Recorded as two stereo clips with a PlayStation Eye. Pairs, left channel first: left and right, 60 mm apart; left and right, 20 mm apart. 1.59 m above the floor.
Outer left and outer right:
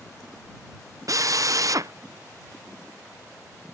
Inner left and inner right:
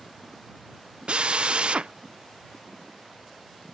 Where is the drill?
55° right (ahead or behind).